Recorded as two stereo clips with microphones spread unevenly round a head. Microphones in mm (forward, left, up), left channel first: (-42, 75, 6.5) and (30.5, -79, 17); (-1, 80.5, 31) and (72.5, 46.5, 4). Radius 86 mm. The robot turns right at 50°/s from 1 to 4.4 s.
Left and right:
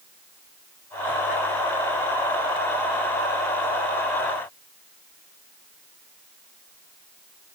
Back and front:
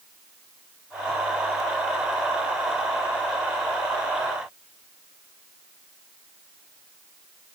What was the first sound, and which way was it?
Only background noise.